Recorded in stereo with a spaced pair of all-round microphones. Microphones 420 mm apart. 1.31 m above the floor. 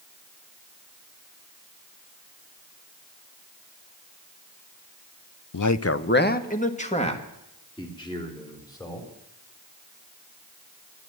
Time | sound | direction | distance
5.5 | a man speaking | 55° left (ahead or behind) | 0.5 m